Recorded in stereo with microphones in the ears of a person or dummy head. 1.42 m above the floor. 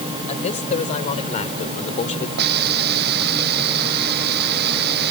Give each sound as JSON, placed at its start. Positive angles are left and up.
{"t": 0.3, "sound": "a man speaking", "side_deg": 35}
{"t": 2.4, "sound": "a hiss", "side_deg": -55}